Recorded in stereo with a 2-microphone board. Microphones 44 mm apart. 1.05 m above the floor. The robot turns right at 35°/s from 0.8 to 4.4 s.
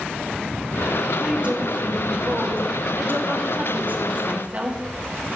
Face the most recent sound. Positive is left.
turn(degrees=-40)